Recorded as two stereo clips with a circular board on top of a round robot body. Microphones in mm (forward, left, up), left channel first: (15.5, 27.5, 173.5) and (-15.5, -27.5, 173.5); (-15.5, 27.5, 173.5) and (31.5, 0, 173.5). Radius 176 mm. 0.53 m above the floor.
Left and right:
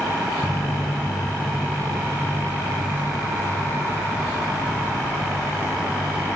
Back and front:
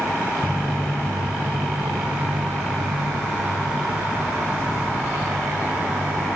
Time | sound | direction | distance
0.4 | footsteps | 115° left | 0.5 m